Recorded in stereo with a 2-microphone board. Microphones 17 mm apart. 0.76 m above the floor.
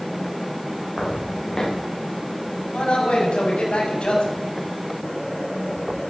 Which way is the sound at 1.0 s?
25° left (ahead or behind).